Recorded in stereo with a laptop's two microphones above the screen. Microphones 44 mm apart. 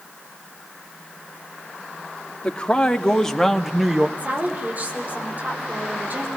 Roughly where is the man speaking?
Left.